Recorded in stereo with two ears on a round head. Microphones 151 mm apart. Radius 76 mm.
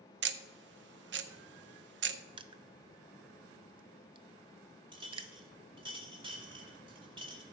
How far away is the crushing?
About 0.6 m.